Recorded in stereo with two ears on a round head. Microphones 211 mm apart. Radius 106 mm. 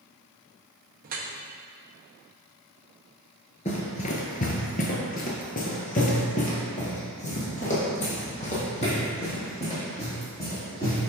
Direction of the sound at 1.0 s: 35° right (ahead or behind).